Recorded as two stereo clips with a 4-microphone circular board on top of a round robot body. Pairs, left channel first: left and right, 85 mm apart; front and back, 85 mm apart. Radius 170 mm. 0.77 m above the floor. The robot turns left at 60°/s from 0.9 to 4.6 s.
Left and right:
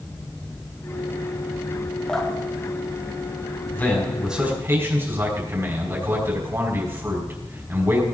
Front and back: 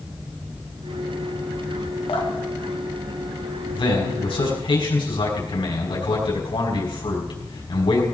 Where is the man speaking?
20° left, 5 m; by 8.0 s 30° right, 5 m.